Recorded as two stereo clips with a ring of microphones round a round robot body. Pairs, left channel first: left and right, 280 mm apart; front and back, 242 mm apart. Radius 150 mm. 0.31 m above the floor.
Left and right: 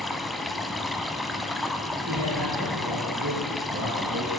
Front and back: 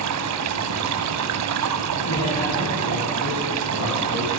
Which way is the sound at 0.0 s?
Straight behind.